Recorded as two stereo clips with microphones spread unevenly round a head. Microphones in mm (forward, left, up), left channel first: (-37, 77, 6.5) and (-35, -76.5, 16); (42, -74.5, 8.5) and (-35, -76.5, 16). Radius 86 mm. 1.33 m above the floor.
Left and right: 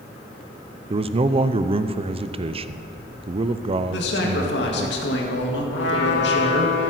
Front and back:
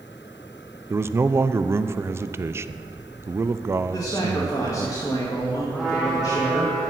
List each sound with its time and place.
0.9 s a man speaking: 130° right, 0.5 m
3.9 s a man speaking: 70° left, 1.9 m
5.7 s a trumpet: 95° left, 1.5 m